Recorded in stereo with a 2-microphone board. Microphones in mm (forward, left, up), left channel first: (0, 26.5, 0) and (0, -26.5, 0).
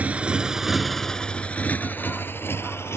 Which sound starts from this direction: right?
A motorcycle, at 0.0 s.